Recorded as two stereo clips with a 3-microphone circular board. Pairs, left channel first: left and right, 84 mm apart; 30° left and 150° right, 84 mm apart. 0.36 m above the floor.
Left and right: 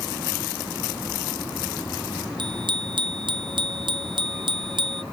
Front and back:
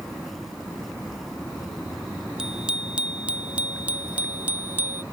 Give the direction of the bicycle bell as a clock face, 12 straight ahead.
2 o'clock.